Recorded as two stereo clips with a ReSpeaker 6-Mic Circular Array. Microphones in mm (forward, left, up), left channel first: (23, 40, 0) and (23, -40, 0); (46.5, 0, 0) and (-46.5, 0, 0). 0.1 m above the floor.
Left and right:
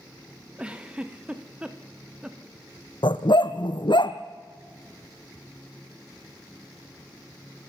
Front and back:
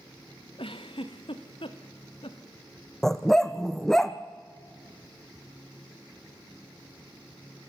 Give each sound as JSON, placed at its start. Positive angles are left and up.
{"t": 0.6, "sound": "a giggle", "azimuth_deg": -15, "distance_m": 1.9}
{"t": 3.0, "sound": "a dog barking", "azimuth_deg": 85, "distance_m": 1.2}